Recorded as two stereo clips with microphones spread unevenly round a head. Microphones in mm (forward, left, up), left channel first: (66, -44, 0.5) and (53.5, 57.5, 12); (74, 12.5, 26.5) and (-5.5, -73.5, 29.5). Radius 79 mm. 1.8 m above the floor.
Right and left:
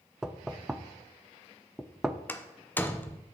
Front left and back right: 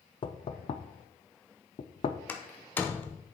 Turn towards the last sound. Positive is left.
turn(degrees=-15)